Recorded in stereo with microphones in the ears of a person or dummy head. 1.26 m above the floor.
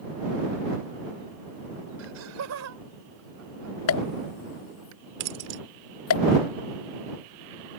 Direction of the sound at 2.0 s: 85° right.